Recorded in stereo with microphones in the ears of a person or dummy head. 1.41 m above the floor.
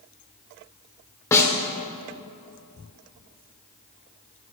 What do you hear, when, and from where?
1.3 s a snare drum: 15° left (ahead or behind), 0.8 m